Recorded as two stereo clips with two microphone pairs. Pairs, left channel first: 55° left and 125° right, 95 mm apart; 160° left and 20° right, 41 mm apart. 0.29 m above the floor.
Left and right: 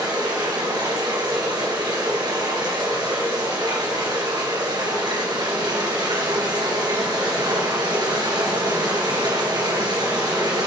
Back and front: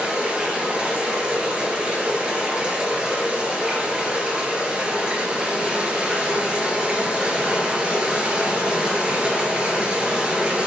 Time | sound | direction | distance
0.0 | running water | 85° right | 3 m